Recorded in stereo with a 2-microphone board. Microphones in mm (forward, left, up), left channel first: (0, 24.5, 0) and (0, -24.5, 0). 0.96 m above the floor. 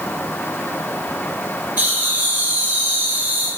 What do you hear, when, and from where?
1.8 s laughter: 40° right (ahead or behind), 1.8 m; by 3.5 s 30° right (ahead or behind), 0.9 m